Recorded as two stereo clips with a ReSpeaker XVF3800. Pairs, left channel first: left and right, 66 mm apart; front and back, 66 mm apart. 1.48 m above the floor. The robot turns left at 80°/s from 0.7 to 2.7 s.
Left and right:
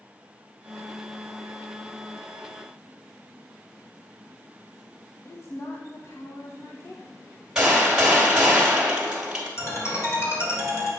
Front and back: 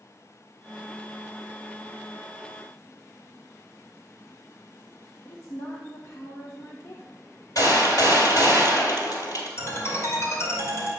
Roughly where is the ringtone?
Ahead left.